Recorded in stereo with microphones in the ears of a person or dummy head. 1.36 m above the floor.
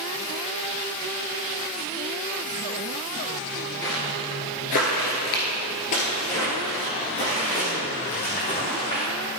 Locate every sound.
3.8 s footsteps: 15° left (ahead or behind), 1.5 m; by 9.0 s 30° left (ahead or behind), 3.5 m